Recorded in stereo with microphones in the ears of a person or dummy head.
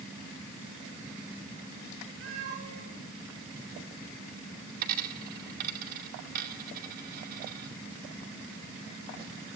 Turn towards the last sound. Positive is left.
turn(degrees=-60)  # may be behind; listen again after turning